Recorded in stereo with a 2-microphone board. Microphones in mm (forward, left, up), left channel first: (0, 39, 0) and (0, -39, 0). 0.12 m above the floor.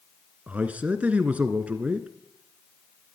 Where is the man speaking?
20° right (ahead or behind), 1.1 m.